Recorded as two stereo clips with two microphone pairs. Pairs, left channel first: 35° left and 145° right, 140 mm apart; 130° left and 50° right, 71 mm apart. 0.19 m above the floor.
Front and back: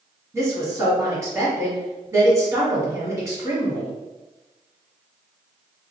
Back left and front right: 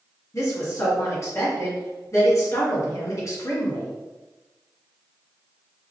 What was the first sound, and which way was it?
A woman speaking, 150° left.